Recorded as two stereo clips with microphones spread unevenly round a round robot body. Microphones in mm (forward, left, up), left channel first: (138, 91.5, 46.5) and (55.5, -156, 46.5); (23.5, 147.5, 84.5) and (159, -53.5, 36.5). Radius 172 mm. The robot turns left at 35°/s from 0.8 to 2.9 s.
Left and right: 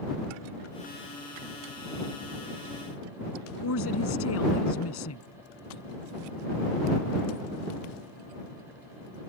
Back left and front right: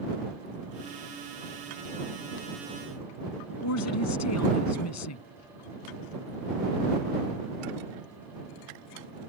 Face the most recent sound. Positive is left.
turn(degrees=115)